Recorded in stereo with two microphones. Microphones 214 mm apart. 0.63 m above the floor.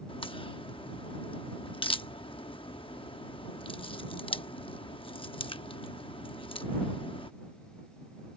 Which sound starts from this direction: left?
A crack, at 0.1 s.